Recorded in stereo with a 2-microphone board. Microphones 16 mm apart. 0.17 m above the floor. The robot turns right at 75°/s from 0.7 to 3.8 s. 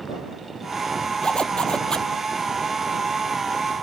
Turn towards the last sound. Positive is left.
turn(degrees=-95)